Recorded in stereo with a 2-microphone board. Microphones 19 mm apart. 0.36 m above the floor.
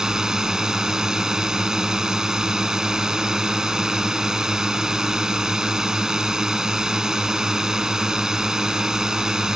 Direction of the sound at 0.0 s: 40° right (ahead or behind).